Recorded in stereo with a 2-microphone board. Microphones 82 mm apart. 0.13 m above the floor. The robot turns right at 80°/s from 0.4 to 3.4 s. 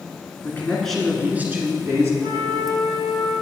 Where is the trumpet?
150° left, 2.5 m; by 3.3 s 120° right, 2.5 m.